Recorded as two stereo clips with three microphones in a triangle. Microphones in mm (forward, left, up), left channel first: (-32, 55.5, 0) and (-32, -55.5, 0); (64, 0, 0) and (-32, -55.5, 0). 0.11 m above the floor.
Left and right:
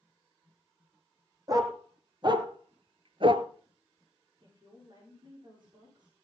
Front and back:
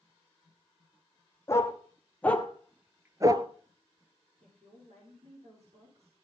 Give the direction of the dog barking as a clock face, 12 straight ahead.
1 o'clock.